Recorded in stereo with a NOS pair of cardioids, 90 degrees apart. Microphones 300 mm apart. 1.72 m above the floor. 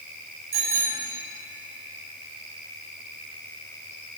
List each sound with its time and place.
0.5 s a bicycle bell: 50° right, 9 m